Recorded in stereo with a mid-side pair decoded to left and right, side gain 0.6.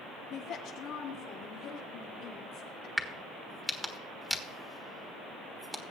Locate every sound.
0.3 s a woman speaking: 70° left, 1.9 m
3.0 s a crack: straight ahead, 1.4 m